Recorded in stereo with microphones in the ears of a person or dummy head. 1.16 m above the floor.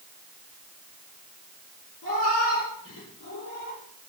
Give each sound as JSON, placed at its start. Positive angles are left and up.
{"t": 2.0, "sound": "a cat meowing", "side_deg": 80, "distance_m": 7.0}